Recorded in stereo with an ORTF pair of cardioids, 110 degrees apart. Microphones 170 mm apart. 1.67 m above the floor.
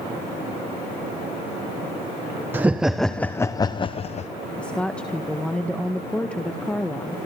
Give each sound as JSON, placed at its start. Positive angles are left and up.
{"t": 2.5, "sound": "laughter", "azimuth_deg": -10, "distance_m": 1.0}
{"t": 4.6, "sound": "a woman speaking", "azimuth_deg": 5, "distance_m": 1.5}